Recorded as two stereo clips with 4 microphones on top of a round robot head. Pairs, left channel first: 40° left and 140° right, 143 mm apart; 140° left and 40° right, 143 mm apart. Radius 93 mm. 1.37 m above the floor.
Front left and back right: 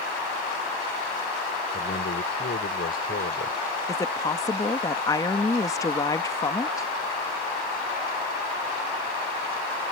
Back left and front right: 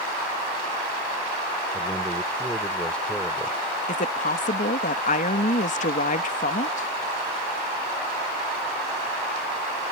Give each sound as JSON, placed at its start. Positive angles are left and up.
{"t": 1.7, "sound": "a man speaking", "azimuth_deg": 60}
{"t": 3.9, "sound": "a woman speaking", "azimuth_deg": 105}